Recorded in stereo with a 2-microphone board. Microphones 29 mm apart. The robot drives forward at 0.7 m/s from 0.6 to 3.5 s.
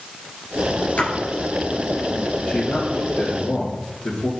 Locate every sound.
1.0 s a splash: 55° left (ahead or behind), 2.5 m
2.5 s a man speaking: 70° left (ahead or behind), 4 m; by 4.3 s 75° left (ahead or behind), 4 m